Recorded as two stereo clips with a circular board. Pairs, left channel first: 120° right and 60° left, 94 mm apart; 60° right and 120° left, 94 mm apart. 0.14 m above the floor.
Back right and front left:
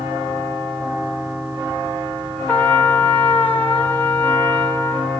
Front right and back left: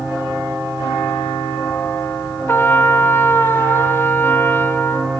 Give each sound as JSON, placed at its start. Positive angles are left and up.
{"t": 2.5, "sound": "a trumpet", "azimuth_deg": -75, "distance_m": 1.2}